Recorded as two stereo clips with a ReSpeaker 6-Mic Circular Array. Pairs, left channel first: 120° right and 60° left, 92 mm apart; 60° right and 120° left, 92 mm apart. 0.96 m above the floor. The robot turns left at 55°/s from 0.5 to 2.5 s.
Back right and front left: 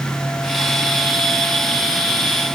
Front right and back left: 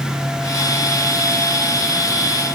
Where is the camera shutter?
No camera shutter in this recording.